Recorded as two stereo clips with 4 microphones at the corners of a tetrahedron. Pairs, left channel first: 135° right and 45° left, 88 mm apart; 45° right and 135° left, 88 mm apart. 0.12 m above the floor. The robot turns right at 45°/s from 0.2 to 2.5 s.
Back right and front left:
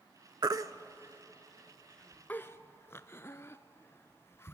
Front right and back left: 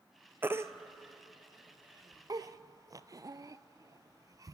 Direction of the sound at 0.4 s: 75° left.